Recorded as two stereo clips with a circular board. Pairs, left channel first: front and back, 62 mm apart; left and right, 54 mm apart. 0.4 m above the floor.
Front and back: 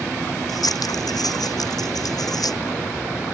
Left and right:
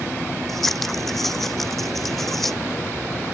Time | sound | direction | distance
0.5 | scissors | 5° left | ?